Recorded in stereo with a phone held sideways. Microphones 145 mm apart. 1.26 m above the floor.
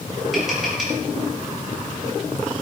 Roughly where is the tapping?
Centre.